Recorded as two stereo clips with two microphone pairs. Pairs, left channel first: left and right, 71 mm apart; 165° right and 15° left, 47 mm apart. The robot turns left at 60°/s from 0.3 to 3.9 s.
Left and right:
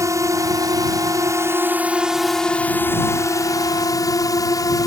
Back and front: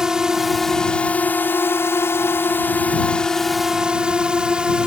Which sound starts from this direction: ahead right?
A drone, at 0.0 s.